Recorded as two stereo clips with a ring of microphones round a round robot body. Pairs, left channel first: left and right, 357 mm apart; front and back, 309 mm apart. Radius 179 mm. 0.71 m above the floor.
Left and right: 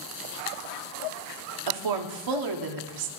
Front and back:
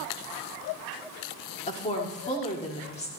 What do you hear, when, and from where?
1.7 s a woman speaking: 70° right, 1.5 m